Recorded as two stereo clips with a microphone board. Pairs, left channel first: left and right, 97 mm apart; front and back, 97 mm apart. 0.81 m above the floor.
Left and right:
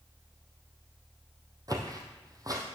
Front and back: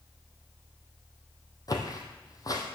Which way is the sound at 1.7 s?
45° right.